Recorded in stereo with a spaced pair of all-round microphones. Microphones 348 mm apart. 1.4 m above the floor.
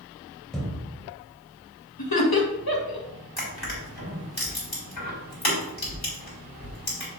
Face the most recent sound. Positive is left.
turn(degrees=80)